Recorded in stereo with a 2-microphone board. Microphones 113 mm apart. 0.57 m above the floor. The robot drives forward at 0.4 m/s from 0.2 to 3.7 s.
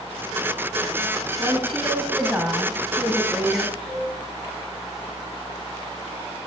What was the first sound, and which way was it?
A woman speaking, 10° right (ahead or behind).